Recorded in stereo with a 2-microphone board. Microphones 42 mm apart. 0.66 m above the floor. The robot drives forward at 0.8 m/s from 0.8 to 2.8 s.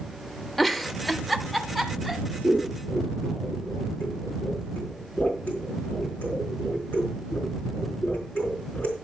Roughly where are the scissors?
Left.